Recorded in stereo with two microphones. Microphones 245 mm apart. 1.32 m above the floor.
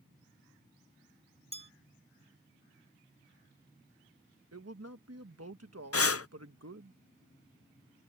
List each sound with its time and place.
1.5 s a bell: 25° right (ahead or behind)
4.5 s a man speaking: 80° right
5.9 s breathing: 70° left (ahead or behind)